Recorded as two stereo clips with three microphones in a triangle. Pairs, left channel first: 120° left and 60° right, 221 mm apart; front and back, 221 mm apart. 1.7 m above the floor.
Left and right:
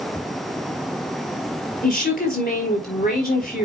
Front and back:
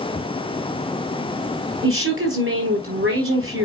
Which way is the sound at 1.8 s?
165° left.